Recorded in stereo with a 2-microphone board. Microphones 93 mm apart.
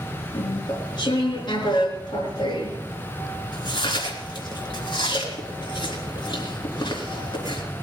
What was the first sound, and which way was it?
Chewing, 50° left (ahead or behind).